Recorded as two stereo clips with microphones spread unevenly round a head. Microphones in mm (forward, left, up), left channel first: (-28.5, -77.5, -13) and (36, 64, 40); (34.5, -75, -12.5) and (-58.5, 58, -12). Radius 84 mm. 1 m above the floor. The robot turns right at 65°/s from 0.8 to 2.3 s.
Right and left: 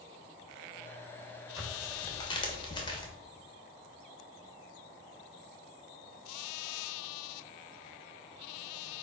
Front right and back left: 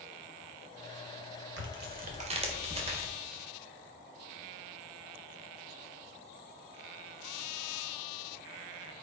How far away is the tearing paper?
About 1.4 m.